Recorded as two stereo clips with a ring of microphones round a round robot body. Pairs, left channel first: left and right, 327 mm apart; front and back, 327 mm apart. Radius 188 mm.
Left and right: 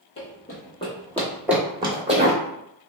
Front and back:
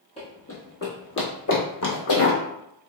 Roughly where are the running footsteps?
Ahead left.